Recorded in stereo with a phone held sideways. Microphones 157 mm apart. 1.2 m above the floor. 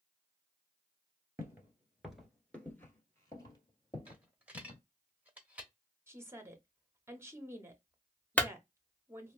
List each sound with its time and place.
1.4 s footsteps: 20° right (ahead or behind), 1.3 m; by 4.8 s 45° left (ahead or behind), 2 m
4.1 s a dropped coin: 10° right (ahead or behind), 0.8 m
6.1 s a woman speaking: 15° right (ahead or behind), 0.9 m
8.4 s a clunk: 10° left (ahead or behind), 0.6 m